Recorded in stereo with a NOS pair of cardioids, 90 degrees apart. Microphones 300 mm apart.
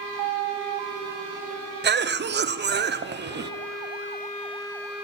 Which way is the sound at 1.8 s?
35° right.